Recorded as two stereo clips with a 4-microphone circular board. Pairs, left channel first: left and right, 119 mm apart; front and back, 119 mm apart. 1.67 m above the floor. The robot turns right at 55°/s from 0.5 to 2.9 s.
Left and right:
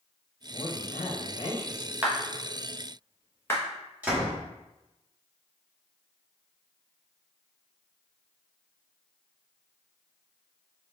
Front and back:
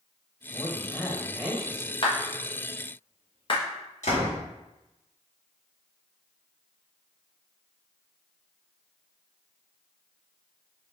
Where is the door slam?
10° right, 1.7 m.